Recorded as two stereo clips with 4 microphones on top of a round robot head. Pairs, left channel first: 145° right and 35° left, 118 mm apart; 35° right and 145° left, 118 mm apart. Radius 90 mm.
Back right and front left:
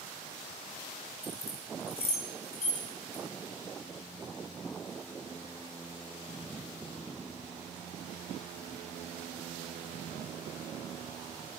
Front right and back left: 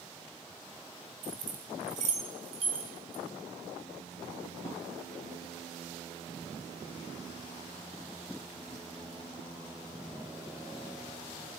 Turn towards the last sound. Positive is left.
turn(degrees=-160)